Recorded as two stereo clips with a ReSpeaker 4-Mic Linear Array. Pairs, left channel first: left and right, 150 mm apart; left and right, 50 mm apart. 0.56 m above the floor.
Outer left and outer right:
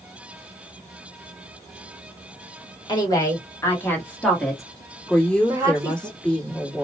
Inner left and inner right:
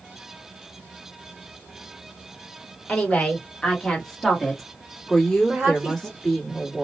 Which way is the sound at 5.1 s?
5° left (ahead or behind).